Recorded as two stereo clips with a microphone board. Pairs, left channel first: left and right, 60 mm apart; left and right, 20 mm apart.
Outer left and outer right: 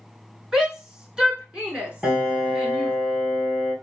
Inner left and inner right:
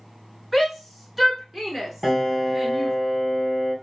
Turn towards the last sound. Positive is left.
turn(degrees=-10)  # may be behind; listen again after turning